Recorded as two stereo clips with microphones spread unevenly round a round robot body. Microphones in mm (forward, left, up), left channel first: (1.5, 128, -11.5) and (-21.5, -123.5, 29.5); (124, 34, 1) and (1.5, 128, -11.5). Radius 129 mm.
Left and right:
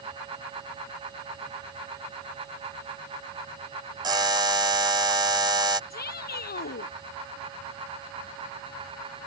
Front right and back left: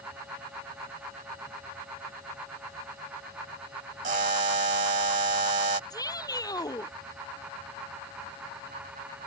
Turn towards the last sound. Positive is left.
turn(degrees=30)